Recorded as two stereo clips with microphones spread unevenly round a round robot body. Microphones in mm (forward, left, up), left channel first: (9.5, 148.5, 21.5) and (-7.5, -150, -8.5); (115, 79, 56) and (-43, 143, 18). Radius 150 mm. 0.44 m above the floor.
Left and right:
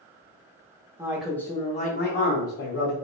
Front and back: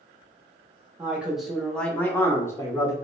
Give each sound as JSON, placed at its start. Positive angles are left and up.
{"t": 1.0, "sound": "a man speaking", "azimuth_deg": -155, "distance_m": 0.8}